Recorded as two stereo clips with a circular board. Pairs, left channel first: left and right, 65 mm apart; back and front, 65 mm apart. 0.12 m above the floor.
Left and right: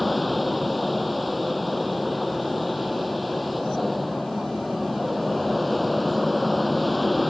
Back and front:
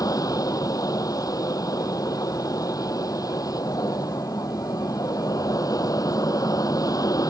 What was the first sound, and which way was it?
An aircraft, straight behind.